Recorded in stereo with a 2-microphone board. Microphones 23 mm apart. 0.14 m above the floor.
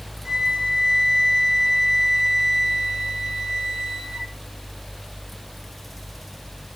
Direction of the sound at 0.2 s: 20° right (ahead or behind).